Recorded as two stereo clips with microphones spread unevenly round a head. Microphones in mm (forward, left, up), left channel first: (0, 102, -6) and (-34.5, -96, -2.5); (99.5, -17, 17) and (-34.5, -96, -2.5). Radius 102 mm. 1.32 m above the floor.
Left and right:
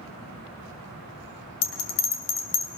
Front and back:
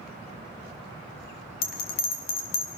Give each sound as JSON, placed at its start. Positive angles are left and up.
{"t": 1.6, "sound": "a bell", "azimuth_deg": 60, "distance_m": 2.0}